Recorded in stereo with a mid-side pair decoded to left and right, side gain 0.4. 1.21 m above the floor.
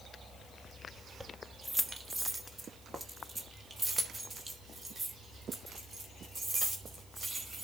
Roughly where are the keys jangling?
Ahead.